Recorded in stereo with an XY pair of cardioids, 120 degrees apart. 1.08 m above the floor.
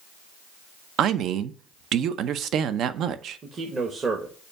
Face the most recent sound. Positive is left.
turn(degrees=-35)